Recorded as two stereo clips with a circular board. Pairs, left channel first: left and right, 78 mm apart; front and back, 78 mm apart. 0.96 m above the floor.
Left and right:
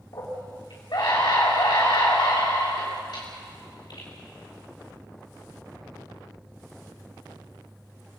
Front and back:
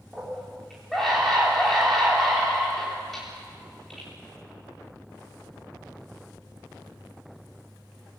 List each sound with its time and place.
0.1 s a scream: 85° left, 3 m